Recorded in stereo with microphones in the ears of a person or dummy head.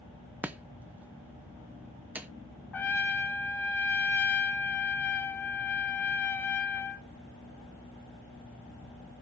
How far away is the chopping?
About 0.6 m.